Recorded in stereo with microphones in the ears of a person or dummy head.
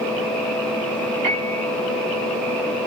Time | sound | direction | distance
1.2 | a piano | 35° right (ahead or behind) | 1.1 m